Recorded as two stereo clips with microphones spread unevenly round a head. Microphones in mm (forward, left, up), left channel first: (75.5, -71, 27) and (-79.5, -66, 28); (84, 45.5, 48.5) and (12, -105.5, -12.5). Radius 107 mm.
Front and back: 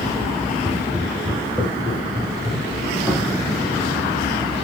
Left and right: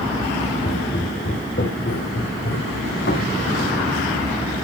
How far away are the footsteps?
About 4.5 m.